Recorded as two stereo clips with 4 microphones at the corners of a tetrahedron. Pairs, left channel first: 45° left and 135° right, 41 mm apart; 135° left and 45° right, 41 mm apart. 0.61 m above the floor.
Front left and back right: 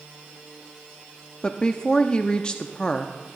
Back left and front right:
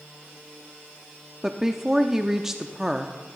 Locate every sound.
1.4 s a woman speaking: 15° left, 0.6 m